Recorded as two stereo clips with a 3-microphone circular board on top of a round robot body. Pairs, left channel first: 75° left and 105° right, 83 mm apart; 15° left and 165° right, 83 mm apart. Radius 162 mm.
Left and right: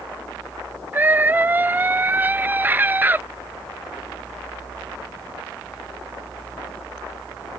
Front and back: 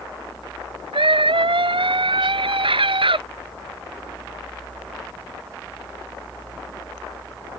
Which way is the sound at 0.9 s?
175° right.